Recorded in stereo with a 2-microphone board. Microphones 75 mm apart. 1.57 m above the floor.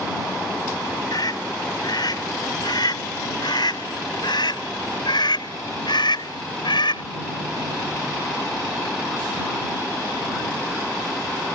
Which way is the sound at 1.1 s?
65° left (ahead or behind).